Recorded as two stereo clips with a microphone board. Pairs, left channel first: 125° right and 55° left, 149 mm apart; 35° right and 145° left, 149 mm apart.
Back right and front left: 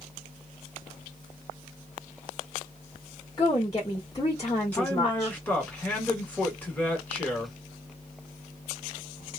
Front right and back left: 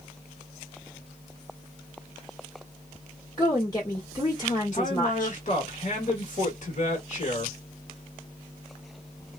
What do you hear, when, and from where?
3.4 s a woman speaking: 80° right, 1.5 m
4.7 s a man speaking: 50° right, 1.5 m